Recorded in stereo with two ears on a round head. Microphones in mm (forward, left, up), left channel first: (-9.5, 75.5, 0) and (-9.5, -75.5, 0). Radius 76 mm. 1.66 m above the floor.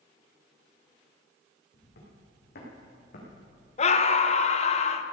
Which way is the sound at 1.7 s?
65° left (ahead or behind).